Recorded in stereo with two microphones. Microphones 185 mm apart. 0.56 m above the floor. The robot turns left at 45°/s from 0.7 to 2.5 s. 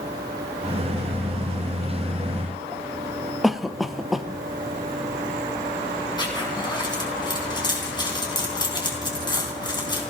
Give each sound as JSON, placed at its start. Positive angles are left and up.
{"t": 3.4, "sound": "a cough", "side_deg": 0, "distance_m": 0.8}
{"t": 6.2, "sound": "a zipper", "side_deg": 20, "distance_m": 3.5}